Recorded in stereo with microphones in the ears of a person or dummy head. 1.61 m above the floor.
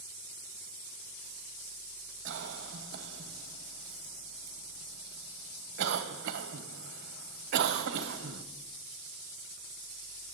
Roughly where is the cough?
Right.